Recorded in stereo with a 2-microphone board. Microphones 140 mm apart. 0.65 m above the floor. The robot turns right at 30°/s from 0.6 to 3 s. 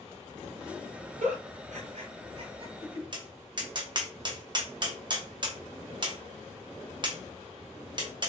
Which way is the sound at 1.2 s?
90° right.